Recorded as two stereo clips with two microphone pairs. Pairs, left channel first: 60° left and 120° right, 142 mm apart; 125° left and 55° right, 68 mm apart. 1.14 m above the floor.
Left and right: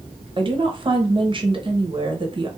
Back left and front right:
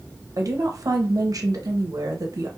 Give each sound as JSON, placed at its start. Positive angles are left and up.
{"t": 0.4, "sound": "a woman speaking", "azimuth_deg": -70, "distance_m": 0.7}